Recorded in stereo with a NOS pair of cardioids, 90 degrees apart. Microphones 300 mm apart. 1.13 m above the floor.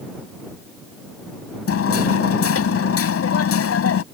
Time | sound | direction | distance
1.7 | hammering | 50° left | ?